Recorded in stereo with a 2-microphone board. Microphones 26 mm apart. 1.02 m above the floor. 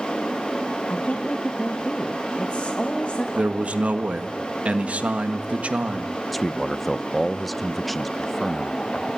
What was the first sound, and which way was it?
A woman speaking, 55° left (ahead or behind).